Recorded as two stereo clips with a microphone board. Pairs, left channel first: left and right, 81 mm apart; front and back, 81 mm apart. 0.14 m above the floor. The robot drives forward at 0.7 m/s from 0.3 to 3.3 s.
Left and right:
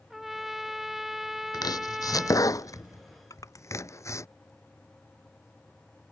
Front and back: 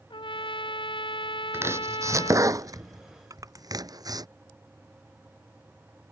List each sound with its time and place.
0.1 s a trumpet: 5° right
1.5 s chopping: 120° left; by 4.3 s 140° left
3.3 s crushing: 135° left